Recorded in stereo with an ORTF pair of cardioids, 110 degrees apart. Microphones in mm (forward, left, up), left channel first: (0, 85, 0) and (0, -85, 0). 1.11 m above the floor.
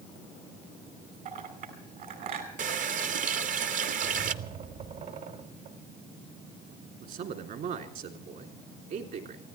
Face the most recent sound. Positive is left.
turn(degrees=-60)